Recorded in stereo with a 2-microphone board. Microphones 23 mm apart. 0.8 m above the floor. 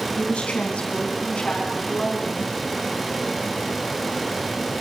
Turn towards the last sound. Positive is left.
turn(degrees=45)  # may be behind; listen again after turning